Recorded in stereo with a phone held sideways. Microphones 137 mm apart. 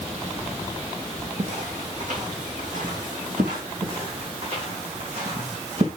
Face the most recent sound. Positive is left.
turn(degrees=-55)  # may be behind; listen again after turning